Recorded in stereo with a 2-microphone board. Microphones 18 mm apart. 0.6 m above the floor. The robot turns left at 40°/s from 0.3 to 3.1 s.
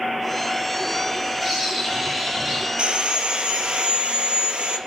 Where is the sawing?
85° right, 3 m; by 4.8 s 75° right (ahead or behind), 3 m.